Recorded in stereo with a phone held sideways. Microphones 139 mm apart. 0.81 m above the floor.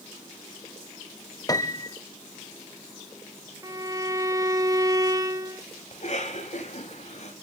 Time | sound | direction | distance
1.5 | a piano | 25° left (ahead or behind) | 0.8 m
3.6 | a violin | 25° right (ahead or behind) | 0.8 m
5.9 | a cough | 55° left (ahead or behind) | 4.5 m